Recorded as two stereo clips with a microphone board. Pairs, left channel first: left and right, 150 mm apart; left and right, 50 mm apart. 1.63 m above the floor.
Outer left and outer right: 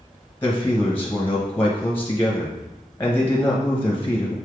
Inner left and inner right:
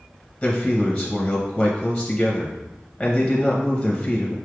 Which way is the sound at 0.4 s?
15° left (ahead or behind).